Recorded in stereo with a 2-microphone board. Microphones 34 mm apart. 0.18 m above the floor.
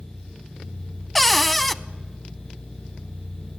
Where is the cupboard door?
10° left (ahead or behind), 0.6 m.